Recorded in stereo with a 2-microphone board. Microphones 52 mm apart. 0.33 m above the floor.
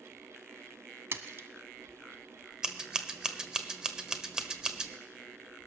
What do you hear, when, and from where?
1.1 s a splash: 55° right (ahead or behind), 1.0 m
2.6 s scissors: 15° right (ahead or behind), 1.1 m